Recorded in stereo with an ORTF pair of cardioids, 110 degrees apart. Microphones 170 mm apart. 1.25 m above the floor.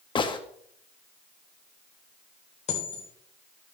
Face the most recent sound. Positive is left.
turn(degrees=40)